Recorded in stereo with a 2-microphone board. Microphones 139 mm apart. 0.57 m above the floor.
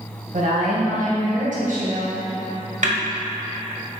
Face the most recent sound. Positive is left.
turn(degrees=-60)  # may be behind; listen again after turning